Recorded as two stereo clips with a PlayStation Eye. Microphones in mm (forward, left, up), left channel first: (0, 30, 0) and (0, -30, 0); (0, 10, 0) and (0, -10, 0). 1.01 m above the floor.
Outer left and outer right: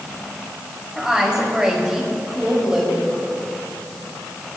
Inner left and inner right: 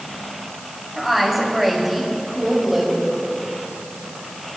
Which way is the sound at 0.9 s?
10° right (ahead or behind).